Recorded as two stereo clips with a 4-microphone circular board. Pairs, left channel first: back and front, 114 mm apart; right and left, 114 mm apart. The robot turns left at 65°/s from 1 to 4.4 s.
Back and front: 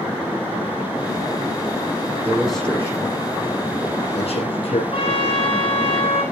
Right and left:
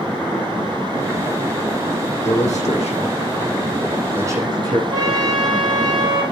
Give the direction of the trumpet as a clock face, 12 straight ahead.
7 o'clock.